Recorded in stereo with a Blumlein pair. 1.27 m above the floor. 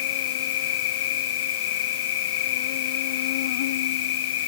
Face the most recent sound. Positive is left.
turn(degrees=55)